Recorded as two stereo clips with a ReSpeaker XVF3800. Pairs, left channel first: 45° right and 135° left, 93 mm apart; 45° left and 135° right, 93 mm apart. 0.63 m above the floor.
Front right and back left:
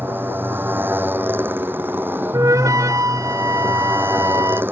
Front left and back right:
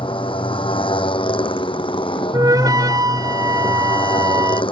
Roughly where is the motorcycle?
Ahead left.